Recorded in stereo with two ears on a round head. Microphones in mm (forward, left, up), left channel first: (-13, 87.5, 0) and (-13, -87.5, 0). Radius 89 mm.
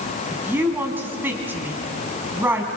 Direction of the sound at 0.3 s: 10° right (ahead or behind).